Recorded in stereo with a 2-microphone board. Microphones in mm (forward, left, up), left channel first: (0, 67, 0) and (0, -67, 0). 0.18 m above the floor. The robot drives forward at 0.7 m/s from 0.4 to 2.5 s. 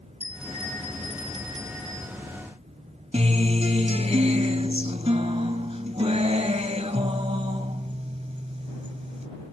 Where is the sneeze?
I don't hear a sneeze.